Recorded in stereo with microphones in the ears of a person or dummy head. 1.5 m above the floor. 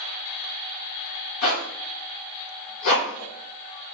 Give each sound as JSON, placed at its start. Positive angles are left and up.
{"t": 1.4, "sound": "a zipper", "side_deg": 70, "distance_m": 1.3}